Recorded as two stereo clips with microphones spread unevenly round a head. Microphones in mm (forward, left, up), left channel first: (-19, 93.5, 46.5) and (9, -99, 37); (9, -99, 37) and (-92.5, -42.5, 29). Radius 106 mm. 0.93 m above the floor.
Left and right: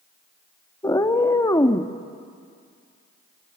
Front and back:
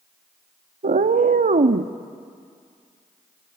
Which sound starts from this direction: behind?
A cat meowing, at 0.8 s.